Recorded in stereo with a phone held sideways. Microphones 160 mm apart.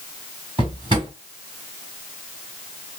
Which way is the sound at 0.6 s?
35° right (ahead or behind).